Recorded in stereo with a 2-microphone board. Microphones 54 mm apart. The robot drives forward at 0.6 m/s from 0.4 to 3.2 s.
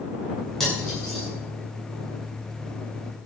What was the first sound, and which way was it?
Cutlery clinking, 10° left (ahead or behind).